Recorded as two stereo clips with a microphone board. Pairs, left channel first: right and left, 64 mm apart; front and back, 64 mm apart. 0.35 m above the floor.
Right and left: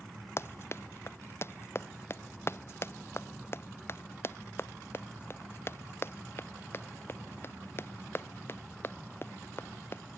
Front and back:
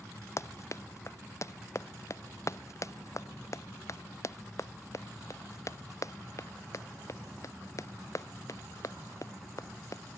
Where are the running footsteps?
40° right; by 10.0 s 35° right.